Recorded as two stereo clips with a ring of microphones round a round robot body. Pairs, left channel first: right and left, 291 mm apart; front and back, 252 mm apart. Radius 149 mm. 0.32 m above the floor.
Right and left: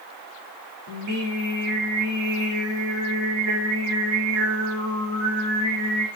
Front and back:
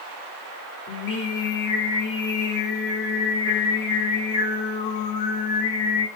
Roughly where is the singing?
Ahead left.